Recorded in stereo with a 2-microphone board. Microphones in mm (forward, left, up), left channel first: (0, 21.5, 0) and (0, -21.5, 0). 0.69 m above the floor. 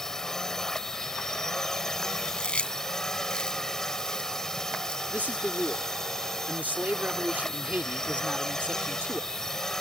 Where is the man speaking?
40° right (ahead or behind).